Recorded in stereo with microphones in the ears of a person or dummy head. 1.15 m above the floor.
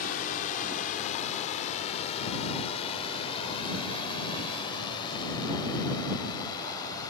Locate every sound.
0.0 s a drone: 50° left (ahead or behind); by 7.1 s 25° left (ahead or behind)